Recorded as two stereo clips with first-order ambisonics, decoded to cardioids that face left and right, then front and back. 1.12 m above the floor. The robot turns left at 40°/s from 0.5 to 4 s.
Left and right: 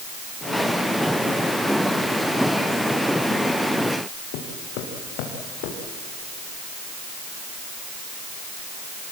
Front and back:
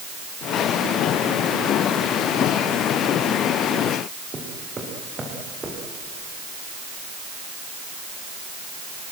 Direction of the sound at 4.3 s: 105° left.